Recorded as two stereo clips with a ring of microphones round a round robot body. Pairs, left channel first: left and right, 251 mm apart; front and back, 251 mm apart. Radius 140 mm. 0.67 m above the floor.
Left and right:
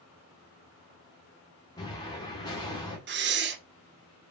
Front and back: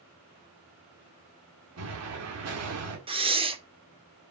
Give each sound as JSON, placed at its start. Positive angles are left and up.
{"t": 1.8, "sound": "an explosion", "azimuth_deg": 165, "distance_m": 2.0}
{"t": 3.1, "sound": "breathing", "azimuth_deg": -115, "distance_m": 1.0}